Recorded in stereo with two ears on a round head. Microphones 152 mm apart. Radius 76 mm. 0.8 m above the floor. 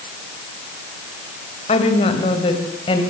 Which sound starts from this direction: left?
A woman speaking, at 1.7 s.